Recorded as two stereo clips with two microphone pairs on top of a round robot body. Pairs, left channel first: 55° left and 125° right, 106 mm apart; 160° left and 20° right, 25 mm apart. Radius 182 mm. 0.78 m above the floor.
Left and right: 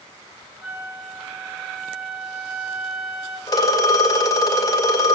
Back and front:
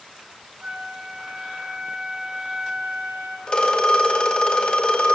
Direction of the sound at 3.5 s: 110° left.